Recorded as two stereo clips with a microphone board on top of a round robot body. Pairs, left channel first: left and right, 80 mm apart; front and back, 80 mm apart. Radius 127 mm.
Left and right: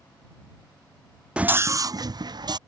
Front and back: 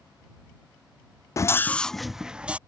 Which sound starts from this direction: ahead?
A scream, at 1.4 s.